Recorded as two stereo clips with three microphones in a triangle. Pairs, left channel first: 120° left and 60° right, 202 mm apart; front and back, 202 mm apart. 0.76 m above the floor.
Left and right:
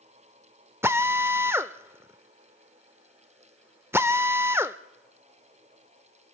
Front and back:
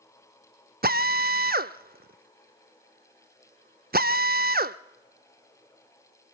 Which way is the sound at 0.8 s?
135° right.